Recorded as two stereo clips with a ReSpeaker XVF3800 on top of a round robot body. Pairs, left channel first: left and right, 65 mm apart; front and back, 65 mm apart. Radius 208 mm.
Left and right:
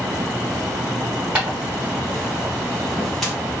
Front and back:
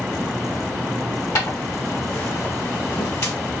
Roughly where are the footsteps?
Ahead.